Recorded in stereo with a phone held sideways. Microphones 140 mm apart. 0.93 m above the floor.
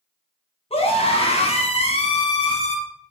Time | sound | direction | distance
0.7 | a scream | 45° left (ahead or behind) | 1.1 m